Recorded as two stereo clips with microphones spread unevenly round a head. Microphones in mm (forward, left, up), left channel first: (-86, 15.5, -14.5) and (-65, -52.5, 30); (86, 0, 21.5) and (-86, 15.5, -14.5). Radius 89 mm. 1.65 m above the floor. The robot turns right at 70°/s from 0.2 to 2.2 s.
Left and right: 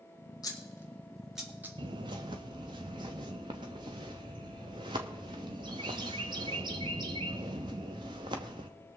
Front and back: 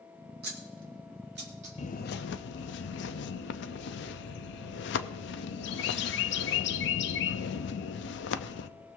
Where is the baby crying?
I don't hear a baby crying.